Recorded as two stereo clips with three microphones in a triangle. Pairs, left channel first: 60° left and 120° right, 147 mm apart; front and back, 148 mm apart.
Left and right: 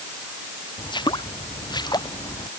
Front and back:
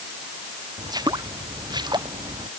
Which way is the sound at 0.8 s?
115° left.